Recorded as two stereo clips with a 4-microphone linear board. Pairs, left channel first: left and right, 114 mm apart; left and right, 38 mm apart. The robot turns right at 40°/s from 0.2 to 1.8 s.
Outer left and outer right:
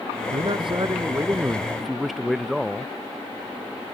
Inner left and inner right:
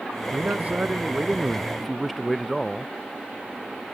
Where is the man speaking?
60° right; by 2.9 s straight ahead.